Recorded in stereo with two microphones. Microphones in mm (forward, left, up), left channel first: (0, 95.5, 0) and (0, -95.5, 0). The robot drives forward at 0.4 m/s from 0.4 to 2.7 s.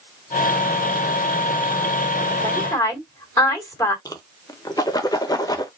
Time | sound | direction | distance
2.4 | a woman speaking | 15° left (ahead or behind) | 2.5 m
4.0 | a whoosh | 20° left (ahead or behind) | 0.8 m